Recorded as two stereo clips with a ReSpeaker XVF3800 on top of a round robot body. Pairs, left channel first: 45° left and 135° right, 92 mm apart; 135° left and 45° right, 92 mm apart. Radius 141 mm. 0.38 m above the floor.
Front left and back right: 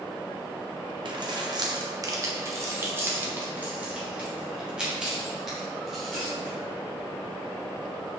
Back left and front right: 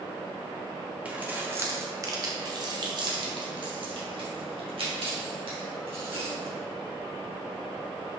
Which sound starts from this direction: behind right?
Keys jangling, at 1.1 s.